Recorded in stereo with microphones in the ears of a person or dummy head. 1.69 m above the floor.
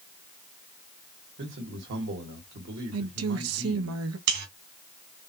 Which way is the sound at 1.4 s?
60° right (ahead or behind).